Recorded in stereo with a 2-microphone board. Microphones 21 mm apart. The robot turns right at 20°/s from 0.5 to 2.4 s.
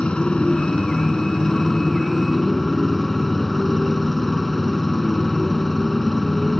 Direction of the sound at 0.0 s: 135° left.